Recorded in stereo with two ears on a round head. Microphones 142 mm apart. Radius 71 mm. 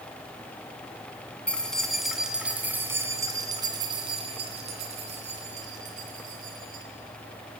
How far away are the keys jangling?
About 2.5 m.